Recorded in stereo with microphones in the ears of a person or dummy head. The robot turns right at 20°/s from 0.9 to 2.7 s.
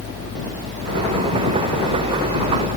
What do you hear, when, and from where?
Only background noise.